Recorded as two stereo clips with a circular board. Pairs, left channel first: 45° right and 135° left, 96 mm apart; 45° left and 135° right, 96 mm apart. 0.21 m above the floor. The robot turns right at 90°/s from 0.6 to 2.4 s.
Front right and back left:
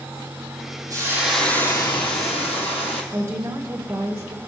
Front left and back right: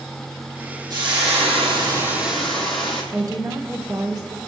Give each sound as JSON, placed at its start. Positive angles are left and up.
{"t": 0.9, "sound": "frying", "azimuth_deg": -175, "distance_m": 3.0}
{"t": 3.1, "sound": "a woman speaking", "azimuth_deg": -170, "distance_m": 1.8}